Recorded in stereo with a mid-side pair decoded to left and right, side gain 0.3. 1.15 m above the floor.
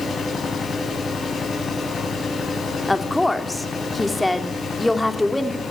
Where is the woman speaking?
10° left, 3 m.